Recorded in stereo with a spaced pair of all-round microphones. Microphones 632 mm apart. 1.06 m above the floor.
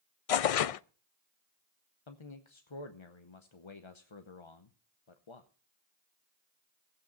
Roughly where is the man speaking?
Left.